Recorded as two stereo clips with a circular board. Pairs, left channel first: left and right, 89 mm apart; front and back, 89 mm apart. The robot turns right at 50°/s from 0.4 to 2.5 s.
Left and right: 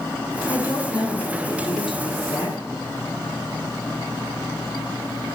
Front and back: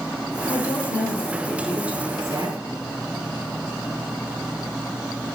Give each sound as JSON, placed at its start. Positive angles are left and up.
{"t": 0.5, "sound": "a woman speaking", "azimuth_deg": 35, "distance_m": 6.0}